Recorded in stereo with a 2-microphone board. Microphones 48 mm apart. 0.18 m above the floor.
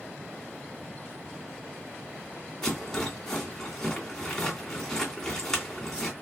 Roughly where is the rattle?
Centre.